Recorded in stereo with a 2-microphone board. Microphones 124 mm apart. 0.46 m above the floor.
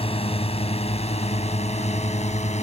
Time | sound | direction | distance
0.0 | a drone | 50° left (ahead or behind) | ?